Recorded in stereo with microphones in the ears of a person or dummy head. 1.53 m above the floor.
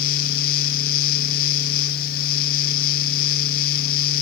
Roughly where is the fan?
Left.